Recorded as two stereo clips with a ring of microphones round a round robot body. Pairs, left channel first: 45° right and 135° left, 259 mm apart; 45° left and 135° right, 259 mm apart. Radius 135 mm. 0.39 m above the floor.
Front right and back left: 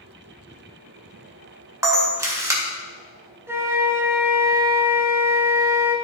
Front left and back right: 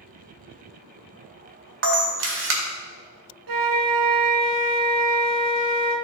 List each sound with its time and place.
1.8 s a camera shutter: 150° right, 1.7 m
3.5 s a flute: 145° right, 0.9 m